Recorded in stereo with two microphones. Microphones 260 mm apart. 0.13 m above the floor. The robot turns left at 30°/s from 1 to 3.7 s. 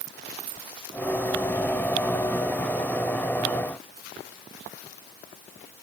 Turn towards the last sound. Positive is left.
No sound to turn to.